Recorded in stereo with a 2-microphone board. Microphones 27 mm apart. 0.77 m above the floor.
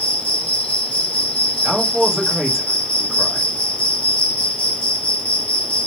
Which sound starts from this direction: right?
A man speaking, at 1.6 s.